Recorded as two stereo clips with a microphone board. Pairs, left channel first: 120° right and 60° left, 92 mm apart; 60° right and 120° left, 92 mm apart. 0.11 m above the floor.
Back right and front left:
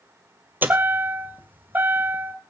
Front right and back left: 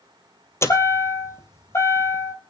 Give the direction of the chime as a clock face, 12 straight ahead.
12 o'clock.